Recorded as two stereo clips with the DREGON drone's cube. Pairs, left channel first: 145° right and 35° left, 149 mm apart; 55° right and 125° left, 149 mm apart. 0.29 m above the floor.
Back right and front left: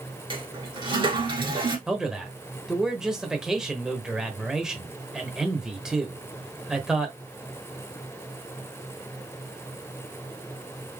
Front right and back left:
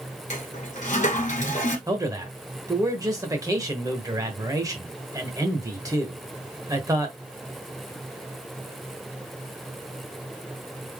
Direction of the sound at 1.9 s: 115° left.